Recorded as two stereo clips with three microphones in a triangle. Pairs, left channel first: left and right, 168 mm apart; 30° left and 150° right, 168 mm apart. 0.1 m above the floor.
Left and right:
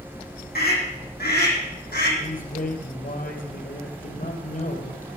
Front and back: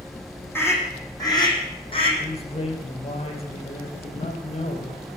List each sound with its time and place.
0.6 s a scream: 105° left, 4.5 m; by 2.1 s 85° left, 4.5 m
2.2 s a man speaking: 75° left, 3 m